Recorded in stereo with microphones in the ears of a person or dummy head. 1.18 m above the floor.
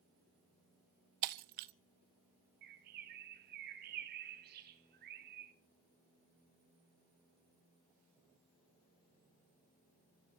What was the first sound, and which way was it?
Breaking glass, 45° right (ahead or behind).